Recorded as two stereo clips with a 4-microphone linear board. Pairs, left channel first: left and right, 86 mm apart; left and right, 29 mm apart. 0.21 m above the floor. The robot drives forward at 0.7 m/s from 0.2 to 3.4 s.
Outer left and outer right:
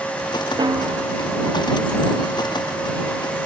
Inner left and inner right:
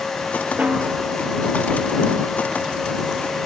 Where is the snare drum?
55° right (ahead or behind); by 1.0 s 60° right (ahead or behind).